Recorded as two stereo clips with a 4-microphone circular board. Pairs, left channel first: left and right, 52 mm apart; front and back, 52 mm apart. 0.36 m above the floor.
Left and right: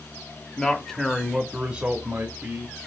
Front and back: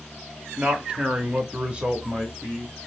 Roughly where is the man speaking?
Behind left.